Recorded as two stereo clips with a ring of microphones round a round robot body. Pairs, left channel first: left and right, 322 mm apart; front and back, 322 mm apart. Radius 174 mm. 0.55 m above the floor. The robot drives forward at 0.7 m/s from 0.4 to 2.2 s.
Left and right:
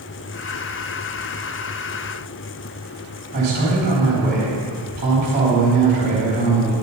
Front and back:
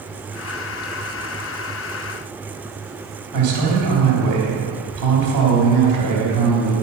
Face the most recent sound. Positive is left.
turn(degrees=-150)